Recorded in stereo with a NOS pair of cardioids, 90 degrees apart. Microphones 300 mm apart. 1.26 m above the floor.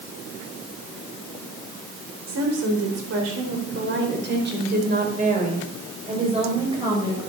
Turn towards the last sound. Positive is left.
turn(degrees=-10)